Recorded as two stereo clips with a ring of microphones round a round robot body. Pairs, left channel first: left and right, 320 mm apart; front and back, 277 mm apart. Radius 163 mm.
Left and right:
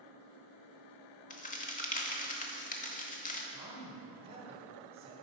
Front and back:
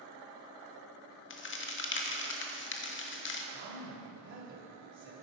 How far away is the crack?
About 0.8 m.